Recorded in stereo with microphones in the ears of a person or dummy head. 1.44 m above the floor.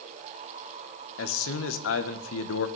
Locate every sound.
1.2 s a man speaking: 65° left (ahead or behind), 1.5 m